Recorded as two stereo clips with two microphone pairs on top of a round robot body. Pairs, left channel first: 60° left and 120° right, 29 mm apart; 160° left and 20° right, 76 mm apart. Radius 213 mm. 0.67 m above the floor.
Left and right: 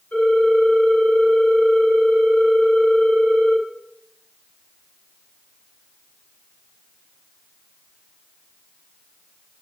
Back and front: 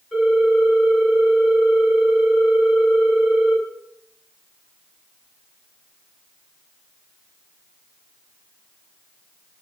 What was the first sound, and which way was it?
A ringtone, 80° left.